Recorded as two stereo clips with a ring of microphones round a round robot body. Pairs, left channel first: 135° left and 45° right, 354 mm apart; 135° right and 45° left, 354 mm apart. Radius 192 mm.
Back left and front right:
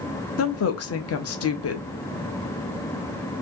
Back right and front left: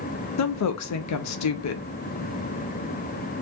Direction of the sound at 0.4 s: 175° right.